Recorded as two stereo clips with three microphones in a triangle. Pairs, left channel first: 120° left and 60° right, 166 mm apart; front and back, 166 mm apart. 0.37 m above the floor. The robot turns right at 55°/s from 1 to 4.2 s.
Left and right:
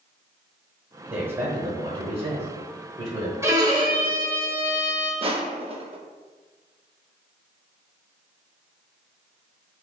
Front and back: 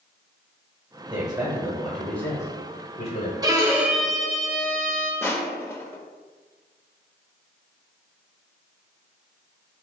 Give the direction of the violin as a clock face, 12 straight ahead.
4 o'clock.